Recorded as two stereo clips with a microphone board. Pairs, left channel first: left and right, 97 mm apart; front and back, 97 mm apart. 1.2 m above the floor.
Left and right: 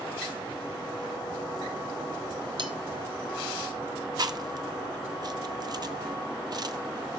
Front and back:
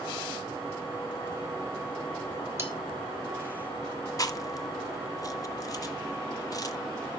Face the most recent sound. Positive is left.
turn(degrees=-45)